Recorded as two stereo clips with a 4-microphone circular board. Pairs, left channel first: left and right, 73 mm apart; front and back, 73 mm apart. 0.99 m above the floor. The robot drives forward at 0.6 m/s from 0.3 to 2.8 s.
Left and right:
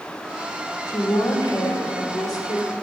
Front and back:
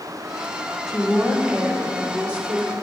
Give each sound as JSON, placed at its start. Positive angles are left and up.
{"t": 0.9, "sound": "a woman speaking", "azimuth_deg": 90, "distance_m": 2.5}